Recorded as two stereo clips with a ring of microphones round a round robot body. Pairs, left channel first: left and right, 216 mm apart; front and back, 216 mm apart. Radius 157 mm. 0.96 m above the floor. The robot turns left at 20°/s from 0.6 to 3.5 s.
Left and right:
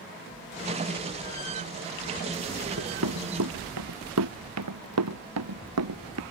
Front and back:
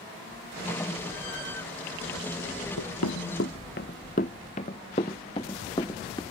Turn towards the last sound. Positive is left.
turn(degrees=-80)